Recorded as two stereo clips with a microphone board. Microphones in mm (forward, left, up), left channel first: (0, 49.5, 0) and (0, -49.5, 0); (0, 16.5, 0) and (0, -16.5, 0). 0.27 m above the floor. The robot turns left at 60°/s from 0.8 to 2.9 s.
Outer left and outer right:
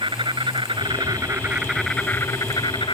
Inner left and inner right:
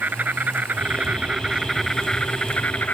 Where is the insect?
120° right; by 2.9 s 115° left.